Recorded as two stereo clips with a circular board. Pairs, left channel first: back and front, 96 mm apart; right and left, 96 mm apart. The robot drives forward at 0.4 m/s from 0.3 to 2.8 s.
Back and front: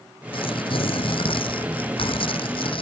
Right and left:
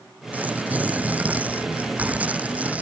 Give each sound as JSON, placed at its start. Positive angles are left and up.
{"t": 0.3, "sound": "tearing paper", "azimuth_deg": 165}